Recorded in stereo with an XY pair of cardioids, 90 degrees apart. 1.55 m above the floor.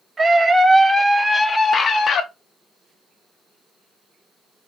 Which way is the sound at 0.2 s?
35° right.